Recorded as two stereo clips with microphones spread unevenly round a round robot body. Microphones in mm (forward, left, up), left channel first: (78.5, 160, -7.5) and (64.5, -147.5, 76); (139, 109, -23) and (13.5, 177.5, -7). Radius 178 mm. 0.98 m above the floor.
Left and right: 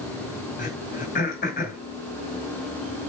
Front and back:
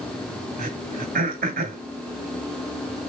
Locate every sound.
0.6 s throat clearing: 160° left, 2 m